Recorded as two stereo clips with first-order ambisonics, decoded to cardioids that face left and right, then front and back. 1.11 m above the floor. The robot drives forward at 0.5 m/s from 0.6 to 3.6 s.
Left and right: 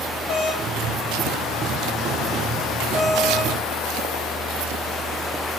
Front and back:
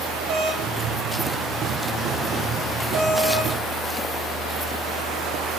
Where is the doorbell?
135° left, 2.5 m; by 5.6 s 150° left, 4 m.